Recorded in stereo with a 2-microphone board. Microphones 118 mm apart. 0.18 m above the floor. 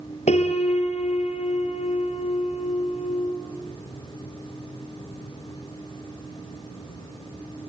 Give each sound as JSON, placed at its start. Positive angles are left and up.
{"t": 0.3, "sound": "a piano", "side_deg": 75, "distance_m": 3.0}